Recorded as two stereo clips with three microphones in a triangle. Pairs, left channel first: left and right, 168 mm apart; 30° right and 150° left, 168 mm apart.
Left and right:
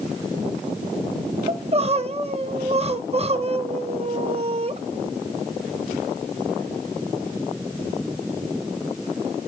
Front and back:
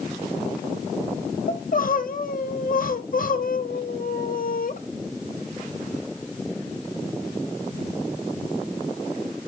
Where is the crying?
45° right, 0.6 m.